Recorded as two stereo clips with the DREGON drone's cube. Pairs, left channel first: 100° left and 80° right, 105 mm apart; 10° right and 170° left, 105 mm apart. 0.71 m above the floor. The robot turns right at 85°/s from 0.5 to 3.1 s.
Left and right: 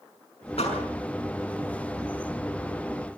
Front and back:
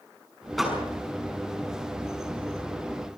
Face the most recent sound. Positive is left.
turn(degrees=-65)